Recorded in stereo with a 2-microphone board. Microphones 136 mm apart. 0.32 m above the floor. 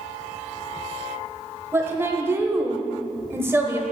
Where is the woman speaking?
20° right (ahead or behind), 1.2 m.